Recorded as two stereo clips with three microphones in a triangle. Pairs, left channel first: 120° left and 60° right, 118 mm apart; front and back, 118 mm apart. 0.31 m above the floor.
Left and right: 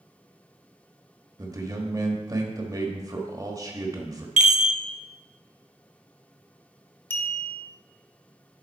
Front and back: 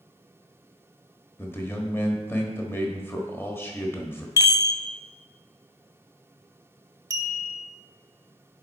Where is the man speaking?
50° right, 1.2 m.